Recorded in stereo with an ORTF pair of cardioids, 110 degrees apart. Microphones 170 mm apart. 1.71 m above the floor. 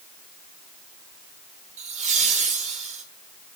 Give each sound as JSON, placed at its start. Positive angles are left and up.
{"t": 1.8, "sound": "laughter", "azimuth_deg": -45, "distance_m": 4.5}